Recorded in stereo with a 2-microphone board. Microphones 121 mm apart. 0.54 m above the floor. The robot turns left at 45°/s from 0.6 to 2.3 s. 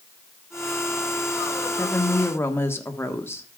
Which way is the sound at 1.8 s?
20° left (ahead or behind).